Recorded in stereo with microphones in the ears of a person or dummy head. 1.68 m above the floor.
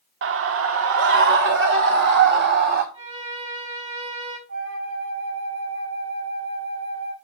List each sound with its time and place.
0.2 s a scream: 60° right (ahead or behind), 0.8 m; by 2.8 s 55° right (ahead or behind), 3 m
2.9 s a violin: 30° right (ahead or behind), 5 m
4.5 s a flute: 70° right (ahead or behind), 6 m